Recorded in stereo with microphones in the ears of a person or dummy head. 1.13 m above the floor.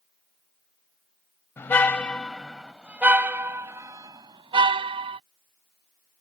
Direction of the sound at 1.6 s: 15° left (ahead or behind).